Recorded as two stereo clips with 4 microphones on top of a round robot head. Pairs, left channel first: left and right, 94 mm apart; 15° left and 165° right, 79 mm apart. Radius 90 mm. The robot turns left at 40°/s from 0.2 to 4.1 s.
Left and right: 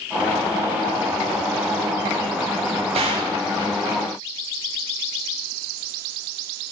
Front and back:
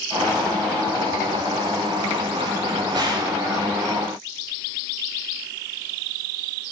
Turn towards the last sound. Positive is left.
turn(degrees=-165)